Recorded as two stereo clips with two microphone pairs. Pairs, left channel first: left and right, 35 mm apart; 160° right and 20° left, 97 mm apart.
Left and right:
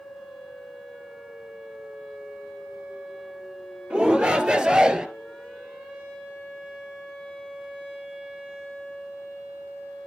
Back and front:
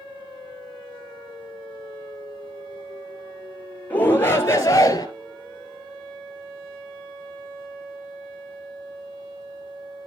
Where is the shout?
100° right, 2 m; by 5.1 s 140° right, 2 m.